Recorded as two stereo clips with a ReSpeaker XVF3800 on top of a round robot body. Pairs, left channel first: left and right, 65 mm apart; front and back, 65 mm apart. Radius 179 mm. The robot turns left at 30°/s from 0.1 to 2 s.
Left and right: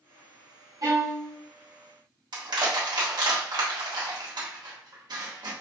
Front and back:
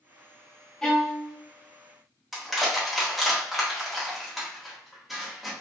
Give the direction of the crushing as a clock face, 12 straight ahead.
3 o'clock.